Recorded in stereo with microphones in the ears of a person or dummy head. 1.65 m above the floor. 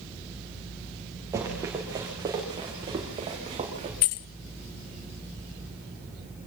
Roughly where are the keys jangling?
Left.